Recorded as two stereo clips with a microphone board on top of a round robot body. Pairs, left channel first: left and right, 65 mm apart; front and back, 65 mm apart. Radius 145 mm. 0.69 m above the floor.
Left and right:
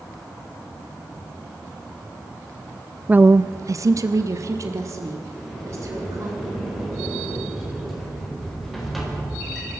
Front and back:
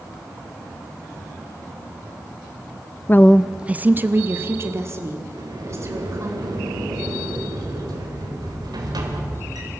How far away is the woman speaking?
About 0.5 m.